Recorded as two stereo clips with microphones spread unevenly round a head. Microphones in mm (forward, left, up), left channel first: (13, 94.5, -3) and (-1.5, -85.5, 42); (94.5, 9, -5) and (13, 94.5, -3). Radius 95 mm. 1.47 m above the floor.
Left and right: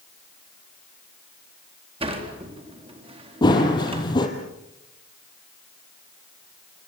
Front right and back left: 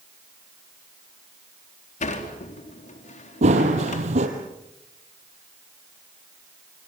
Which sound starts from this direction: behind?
Running footsteps, at 3.4 s.